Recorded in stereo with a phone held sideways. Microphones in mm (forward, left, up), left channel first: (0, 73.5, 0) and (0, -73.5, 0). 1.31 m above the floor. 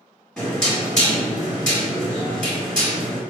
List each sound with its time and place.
0.4 s knocking: 5° left (ahead or behind), 1.7 m